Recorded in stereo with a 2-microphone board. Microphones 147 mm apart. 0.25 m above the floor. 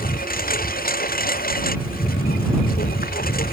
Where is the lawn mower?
80° left; by 3.5 s 85° left.